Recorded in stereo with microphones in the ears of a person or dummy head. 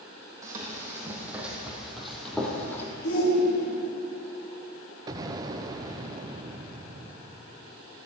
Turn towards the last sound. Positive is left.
turn(degrees=-25)  # may be behind; listen again after turning